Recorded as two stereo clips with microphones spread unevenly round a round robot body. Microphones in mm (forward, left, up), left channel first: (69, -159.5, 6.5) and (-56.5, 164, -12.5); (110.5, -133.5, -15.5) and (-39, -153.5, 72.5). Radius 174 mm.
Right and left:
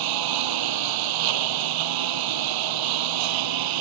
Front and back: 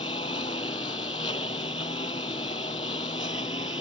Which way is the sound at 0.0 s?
85° left.